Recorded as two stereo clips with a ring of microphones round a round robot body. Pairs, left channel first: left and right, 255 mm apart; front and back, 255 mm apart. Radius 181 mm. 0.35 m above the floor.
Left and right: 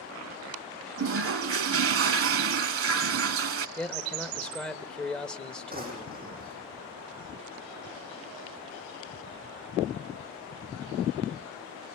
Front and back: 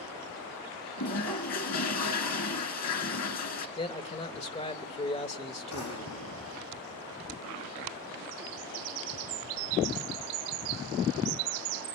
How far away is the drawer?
About 7.5 m.